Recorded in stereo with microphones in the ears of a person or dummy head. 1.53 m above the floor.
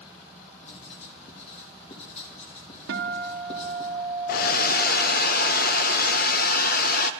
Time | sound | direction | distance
0.6 | writing | 35° left (ahead or behind) | 3 m
2.9 | a guitar | 65° right (ahead or behind) | 1.6 m
4.3 | a hair dryer | 50° left (ahead or behind) | 0.8 m